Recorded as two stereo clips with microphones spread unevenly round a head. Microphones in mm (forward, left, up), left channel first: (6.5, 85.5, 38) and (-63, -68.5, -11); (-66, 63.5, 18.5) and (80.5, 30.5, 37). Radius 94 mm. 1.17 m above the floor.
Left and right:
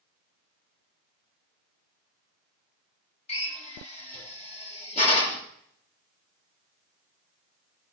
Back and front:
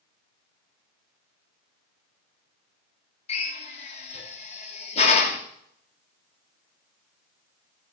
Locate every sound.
3.3 s a drill: 120° left, 3 m